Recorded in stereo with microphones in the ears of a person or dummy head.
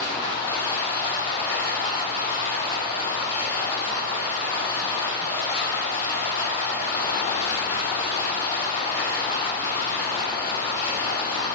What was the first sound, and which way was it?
Running water, 45° left (ahead or behind).